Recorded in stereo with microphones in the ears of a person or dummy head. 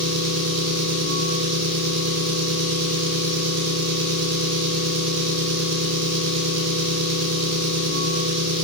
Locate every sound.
0.0 s an engine running: 75° right (ahead or behind), 0.9 m